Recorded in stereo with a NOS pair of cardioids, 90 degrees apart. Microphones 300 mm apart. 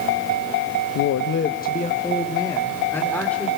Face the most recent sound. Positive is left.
turn(degrees=5)